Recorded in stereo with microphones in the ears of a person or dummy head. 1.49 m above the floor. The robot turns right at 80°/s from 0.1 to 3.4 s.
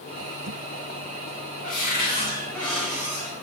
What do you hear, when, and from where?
1.6 s a cupboard door: 90° left, 2.5 m; by 3.4 s 130° right, 2.5 m